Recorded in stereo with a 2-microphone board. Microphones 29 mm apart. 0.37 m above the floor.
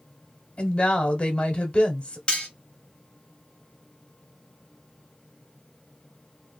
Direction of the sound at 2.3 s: 35° left (ahead or behind).